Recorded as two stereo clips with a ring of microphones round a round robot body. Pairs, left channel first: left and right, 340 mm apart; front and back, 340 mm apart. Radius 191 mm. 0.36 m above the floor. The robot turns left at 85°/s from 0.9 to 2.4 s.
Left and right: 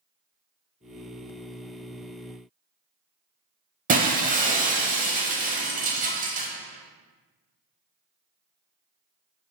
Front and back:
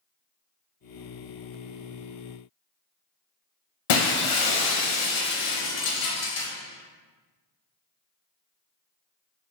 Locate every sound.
3.9 s breaking glass: 20° right, 0.8 m